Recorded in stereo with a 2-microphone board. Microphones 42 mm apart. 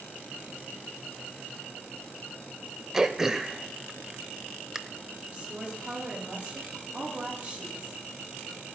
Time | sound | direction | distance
2.9 | throat clearing | 15° right (ahead or behind) | 0.7 m
5.3 | a woman speaking | 25° right (ahead or behind) | 9 m